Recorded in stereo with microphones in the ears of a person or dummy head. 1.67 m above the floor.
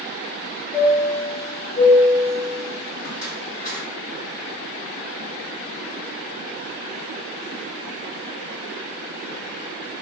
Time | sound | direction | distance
0.7 | a chime | 40° left (ahead or behind) | 1.7 m